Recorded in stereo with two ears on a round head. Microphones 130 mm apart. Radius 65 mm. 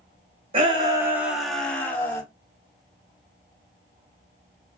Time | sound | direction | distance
0.5 | a shout | 40° right (ahead or behind) | 0.9 m